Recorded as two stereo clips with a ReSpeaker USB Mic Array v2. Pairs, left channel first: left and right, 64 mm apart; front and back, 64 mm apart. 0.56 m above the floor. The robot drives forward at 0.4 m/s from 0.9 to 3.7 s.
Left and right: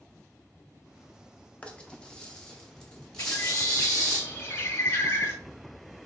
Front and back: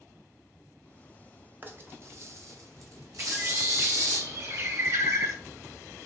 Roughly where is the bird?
Behind left.